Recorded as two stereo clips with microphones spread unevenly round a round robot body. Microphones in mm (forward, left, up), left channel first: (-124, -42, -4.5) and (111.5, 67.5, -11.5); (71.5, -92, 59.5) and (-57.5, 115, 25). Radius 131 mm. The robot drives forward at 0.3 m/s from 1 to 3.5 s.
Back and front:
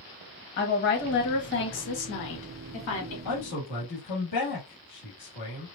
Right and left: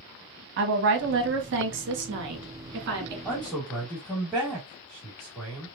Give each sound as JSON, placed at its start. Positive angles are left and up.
{"t": 0.6, "sound": "a woman speaking", "azimuth_deg": 155, "distance_m": 1.4}
{"t": 3.2, "sound": "a man speaking", "azimuth_deg": -150, "distance_m": 1.8}